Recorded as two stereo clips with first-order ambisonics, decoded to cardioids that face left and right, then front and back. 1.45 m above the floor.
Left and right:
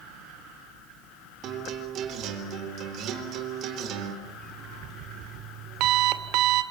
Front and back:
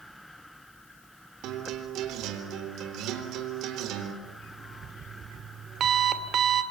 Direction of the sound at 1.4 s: 140° right.